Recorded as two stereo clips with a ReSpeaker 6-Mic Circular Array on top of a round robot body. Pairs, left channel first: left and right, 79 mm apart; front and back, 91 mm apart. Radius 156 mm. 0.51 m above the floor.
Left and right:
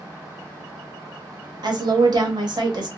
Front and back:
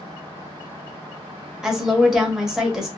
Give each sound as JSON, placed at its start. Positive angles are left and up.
{"t": 1.6, "sound": "a woman speaking", "azimuth_deg": -95, "distance_m": 1.1}